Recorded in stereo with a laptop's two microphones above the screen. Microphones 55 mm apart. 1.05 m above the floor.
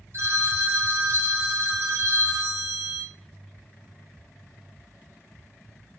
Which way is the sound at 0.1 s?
50° right (ahead or behind).